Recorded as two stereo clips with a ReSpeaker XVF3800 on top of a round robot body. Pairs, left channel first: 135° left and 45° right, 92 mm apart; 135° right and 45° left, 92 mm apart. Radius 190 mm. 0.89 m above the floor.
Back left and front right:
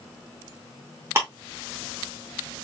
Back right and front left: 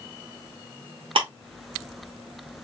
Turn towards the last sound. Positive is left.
turn(degrees=20)